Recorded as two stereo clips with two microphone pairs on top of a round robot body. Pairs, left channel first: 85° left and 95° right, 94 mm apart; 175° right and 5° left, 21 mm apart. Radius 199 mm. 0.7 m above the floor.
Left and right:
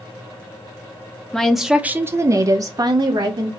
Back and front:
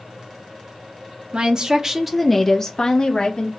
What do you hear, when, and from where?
1.3 s a woman speaking: 5° left, 0.7 m; by 3.5 s 135° right, 1.2 m